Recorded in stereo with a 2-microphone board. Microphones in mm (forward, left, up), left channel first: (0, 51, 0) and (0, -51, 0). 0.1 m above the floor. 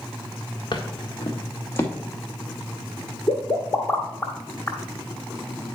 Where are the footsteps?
45° left (ahead or behind), 1.5 m; by 1.9 s 20° left (ahead or behind), 2 m.